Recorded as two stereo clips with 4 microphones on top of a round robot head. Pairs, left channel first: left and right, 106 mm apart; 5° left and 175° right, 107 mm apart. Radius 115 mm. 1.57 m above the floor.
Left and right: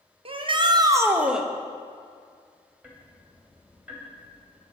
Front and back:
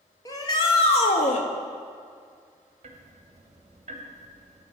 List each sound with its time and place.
0.2 s a shout: 55° right, 1.0 m; by 1.5 s straight ahead, 0.8 m
2.8 s ticking: 170° right, 1.0 m